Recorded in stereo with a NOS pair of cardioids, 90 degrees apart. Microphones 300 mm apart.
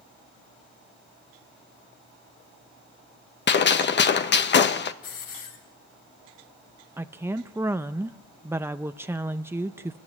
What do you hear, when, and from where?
3.5 s a gunshot: 40° left, 1.1 m
5.0 s a hiss: 60° left, 6 m
7.0 s a woman speaking: 10° right, 0.6 m